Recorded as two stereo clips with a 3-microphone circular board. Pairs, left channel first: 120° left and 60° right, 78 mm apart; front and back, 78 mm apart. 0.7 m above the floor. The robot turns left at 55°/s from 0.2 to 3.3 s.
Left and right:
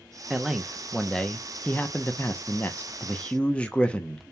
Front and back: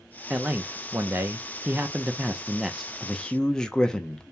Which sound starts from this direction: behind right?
A man speaking, at 0.3 s.